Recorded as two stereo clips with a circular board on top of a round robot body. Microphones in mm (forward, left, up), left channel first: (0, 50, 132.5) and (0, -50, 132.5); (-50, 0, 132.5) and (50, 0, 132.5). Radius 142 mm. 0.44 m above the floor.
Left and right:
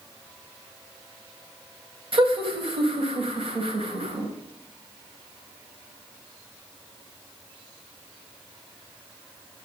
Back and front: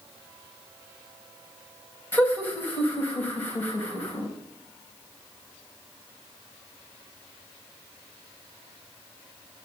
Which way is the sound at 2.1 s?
110° right.